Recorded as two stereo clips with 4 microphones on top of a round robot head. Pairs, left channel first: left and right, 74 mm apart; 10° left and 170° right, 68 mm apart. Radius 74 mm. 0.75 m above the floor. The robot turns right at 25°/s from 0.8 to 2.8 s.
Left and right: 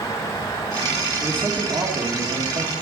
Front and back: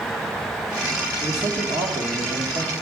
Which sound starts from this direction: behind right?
A man speaking, at 1.2 s.